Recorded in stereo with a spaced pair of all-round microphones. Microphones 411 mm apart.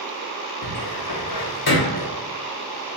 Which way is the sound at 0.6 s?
65° left (ahead or behind).